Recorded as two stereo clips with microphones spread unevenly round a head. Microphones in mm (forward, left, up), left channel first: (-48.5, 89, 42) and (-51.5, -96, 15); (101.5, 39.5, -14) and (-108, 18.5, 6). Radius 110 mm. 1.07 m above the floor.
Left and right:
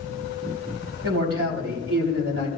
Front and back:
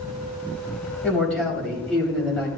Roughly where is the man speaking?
Right.